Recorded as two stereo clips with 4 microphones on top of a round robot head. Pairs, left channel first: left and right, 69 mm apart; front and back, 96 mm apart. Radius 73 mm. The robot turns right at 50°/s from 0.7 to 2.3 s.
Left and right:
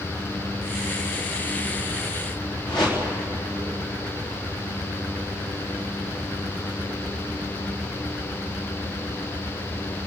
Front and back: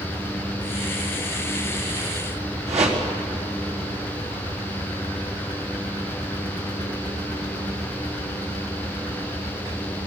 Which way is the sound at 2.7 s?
175° left.